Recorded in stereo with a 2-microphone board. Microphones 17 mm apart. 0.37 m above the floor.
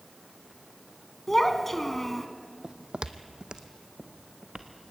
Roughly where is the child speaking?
Centre.